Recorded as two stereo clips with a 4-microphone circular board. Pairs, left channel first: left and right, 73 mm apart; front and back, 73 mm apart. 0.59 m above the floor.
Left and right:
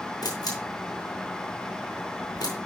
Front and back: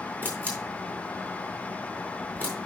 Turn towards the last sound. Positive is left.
turn(degrees=70)